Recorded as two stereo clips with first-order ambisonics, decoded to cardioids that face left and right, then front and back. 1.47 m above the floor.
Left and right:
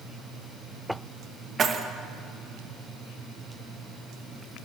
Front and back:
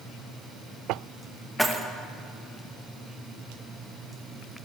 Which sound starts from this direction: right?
Keys jangling, at 1.6 s.